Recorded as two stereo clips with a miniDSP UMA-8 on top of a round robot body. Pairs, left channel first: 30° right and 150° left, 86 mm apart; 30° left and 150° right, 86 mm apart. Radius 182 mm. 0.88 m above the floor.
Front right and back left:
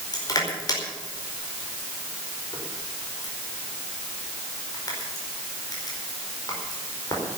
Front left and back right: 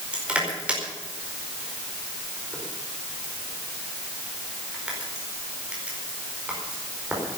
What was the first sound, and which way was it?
Crushing, 75° right.